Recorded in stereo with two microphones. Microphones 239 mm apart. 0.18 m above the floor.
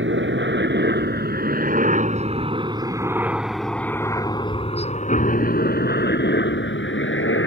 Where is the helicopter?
55° right (ahead or behind); by 7.5 s 55° left (ahead or behind).